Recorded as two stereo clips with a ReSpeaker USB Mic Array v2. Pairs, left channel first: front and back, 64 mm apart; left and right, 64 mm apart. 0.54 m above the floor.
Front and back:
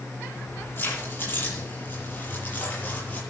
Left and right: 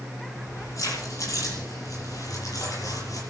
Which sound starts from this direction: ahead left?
Keys jangling, at 0.3 s.